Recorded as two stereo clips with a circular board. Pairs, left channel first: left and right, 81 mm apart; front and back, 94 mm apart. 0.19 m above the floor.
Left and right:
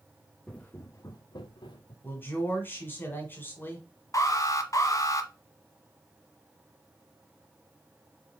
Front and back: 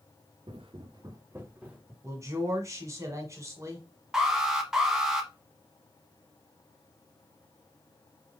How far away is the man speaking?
About 1.6 m.